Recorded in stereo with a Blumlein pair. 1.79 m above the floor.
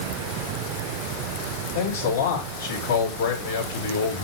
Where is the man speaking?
70° left, 4.5 m.